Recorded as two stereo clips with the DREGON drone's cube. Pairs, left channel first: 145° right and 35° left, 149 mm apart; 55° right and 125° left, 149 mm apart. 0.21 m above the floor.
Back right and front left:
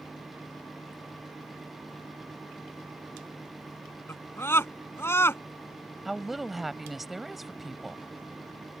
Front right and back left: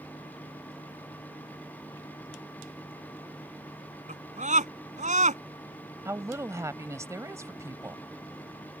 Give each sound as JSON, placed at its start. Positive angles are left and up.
{"t": 4.1, "sound": "a scream", "azimuth_deg": 145}
{"t": 6.0, "sound": "a woman speaking", "azimuth_deg": 120}